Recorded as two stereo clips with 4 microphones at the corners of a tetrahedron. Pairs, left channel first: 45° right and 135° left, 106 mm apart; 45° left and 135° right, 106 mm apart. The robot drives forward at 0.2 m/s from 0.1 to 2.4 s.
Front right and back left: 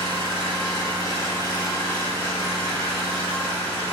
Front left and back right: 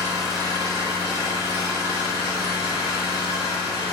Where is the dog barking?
No dog barking in this recording.